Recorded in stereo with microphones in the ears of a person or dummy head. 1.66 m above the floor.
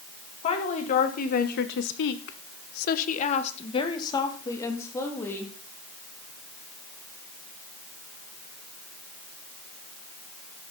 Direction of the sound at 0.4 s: 40° left (ahead or behind).